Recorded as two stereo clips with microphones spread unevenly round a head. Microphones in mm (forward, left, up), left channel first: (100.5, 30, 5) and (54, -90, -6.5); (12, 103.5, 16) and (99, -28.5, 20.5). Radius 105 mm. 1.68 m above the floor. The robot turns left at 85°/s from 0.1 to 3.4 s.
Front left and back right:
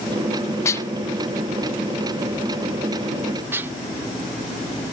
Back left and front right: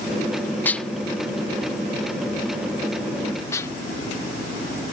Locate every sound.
0.7 s dishes clattering: 55° left; by 3.7 s 175° right